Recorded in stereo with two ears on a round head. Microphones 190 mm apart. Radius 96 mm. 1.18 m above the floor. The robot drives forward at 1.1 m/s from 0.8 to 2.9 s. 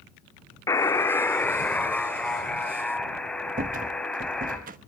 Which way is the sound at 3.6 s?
45° right (ahead or behind).